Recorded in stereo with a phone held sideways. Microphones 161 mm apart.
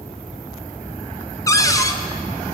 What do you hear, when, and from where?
1.5 s a cupboard door: 20° left (ahead or behind), 0.6 m